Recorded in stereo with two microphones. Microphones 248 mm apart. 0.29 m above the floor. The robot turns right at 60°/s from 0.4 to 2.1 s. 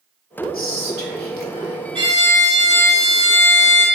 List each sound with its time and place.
0.5 s whispering: 60° left, 1.5 m; by 1.8 s 135° left, 1.5 m
1.9 s a violin: 20° right (ahead or behind), 3 m; by 3.9 s 30° right (ahead or behind), 3 m